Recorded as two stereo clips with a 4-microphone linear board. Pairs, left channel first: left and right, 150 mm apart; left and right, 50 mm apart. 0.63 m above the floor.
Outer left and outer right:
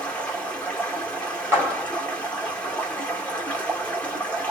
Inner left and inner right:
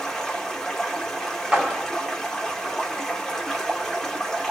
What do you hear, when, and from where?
0.0 s running water: 10° left (ahead or behind), 1.4 m
1.5 s a clap: 15° right (ahead or behind), 1.6 m